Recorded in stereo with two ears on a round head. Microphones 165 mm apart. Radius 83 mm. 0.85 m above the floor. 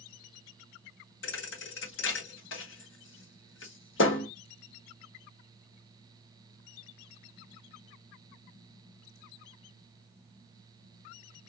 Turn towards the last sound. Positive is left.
turn(degrees=75)  # may be behind; listen again after turning